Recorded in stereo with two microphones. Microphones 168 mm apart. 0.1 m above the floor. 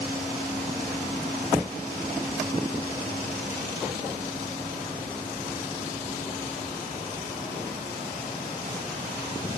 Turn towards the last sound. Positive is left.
No sound to turn to.